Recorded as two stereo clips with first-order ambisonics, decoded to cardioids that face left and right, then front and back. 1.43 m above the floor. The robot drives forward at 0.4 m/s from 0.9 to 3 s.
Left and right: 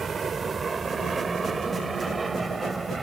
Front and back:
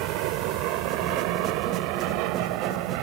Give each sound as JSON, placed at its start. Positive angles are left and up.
{"t": 0.0, "sound": "an aircraft", "azimuth_deg": -160}